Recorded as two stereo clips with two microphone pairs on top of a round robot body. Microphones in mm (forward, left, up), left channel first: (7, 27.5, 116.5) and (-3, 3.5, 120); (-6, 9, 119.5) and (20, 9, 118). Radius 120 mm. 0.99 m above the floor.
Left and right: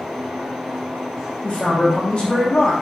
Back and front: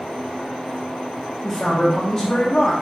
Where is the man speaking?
120° left, 1.1 m.